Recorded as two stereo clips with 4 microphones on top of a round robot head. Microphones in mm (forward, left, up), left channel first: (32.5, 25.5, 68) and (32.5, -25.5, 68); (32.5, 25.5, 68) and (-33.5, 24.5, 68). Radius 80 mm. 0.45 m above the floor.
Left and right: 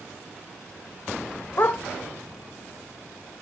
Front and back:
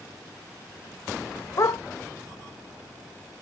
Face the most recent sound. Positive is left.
turn(degrees=45)